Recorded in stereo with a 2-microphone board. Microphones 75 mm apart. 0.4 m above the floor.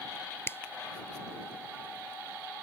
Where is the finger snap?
30° left (ahead or behind).